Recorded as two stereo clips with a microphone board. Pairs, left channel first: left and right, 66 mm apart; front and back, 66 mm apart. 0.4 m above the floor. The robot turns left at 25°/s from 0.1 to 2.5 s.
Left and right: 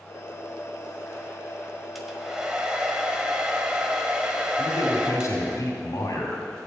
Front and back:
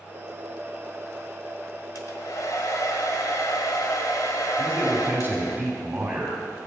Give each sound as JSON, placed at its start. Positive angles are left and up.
{"t": 1.9, "sound": "a hair dryer", "azimuth_deg": 0, "distance_m": 1.5}
{"t": 4.6, "sound": "a man speaking", "azimuth_deg": 115, "distance_m": 2.5}